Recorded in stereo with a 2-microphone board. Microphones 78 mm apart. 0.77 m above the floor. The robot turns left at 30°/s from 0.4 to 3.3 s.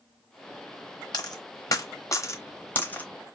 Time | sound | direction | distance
1.1 | a dropped coin | 60° left (ahead or behind) | 0.9 m